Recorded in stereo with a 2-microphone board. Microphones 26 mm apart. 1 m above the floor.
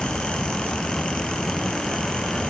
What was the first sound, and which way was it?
Only background noise.